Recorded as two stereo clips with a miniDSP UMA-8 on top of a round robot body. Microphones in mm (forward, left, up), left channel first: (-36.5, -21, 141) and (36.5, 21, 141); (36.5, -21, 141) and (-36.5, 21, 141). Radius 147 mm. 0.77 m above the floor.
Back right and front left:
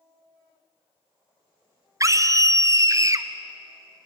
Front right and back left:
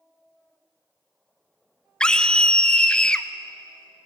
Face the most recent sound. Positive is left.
turn(degrees=45)